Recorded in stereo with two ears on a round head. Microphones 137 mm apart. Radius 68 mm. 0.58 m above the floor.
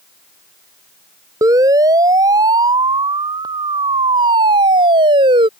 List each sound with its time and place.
1.4 s a siren: 20° right (ahead or behind); by 5.5 s 30° right (ahead or behind)